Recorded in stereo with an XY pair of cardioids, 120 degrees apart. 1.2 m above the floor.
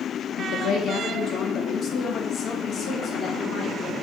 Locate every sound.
0.4 s a woman speaking: 70° left, 1.3 m; by 3.9 s 30° left, 3.5 m